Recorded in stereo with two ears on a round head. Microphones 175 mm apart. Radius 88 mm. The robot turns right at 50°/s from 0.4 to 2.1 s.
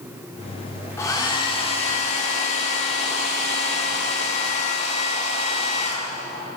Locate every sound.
1.0 s a hair dryer: 25° left, 1.4 m; by 6.5 s 85° left, 1.4 m